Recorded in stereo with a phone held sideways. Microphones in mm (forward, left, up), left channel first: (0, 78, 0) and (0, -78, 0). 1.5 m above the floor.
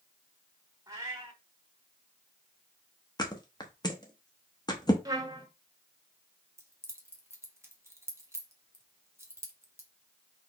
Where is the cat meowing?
20° right (ahead or behind), 1.3 m.